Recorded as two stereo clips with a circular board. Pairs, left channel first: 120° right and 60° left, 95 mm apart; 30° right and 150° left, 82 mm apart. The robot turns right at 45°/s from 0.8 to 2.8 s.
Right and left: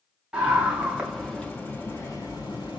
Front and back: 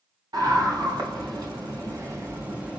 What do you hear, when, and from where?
0.3 s a scream: 140° left, 1.5 m; by 2.8 s 130° right, 1.5 m